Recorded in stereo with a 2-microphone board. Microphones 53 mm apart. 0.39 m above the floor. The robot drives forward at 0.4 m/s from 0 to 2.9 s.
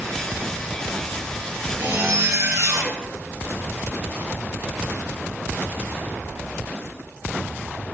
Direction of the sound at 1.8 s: 55° right (ahead or behind).